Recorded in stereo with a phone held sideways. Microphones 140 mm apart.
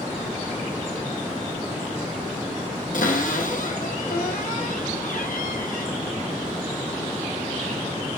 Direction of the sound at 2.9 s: 70° left (ahead or behind).